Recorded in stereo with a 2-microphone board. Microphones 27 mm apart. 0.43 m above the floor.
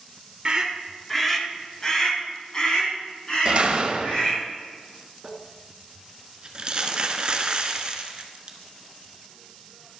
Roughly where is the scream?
Right.